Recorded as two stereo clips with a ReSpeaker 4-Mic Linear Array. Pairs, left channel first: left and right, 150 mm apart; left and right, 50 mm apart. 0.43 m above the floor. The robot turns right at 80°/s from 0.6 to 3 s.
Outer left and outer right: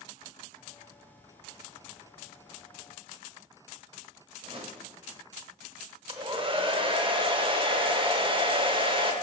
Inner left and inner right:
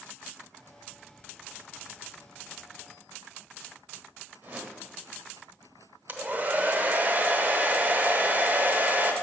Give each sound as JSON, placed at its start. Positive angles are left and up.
{"t": 4.4, "sound": "a whoosh", "side_deg": -35, "distance_m": 0.9}
{"t": 6.1, "sound": "a hair dryer", "side_deg": -35, "distance_m": 0.7}